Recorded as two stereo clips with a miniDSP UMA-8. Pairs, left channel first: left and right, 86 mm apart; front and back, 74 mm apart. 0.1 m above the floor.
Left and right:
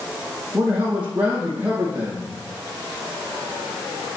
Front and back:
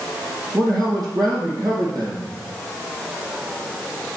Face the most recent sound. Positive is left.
turn(degrees=-165)